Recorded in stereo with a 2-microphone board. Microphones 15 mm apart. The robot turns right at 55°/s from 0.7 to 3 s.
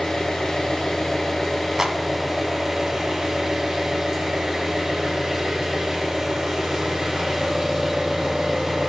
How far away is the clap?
About 1.5 m.